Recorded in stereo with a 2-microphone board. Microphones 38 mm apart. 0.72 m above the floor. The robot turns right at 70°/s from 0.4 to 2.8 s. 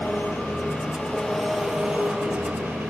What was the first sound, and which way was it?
An engine running, 105° left.